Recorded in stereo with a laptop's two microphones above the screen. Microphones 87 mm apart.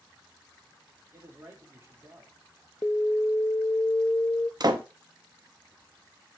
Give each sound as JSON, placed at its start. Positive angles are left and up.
{"t": 1.1, "sound": "a man speaking", "side_deg": -30, "distance_m": 2.5}
{"t": 2.8, "sound": "an alarm", "side_deg": 30, "distance_m": 0.5}
{"t": 4.6, "sound": "a door slam", "side_deg": -50, "distance_m": 0.8}